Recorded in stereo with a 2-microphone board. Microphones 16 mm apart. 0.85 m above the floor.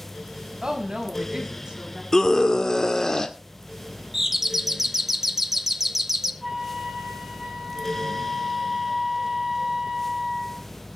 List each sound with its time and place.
0.6 s a woman speaking: 50° right (ahead or behind), 5.5 m
2.1 s a scream: 50° left (ahead or behind), 1.9 m
4.1 s a doorbell: 20° right (ahead or behind), 1.1 m
6.4 s a flute: 25° right (ahead or behind), 8.5 m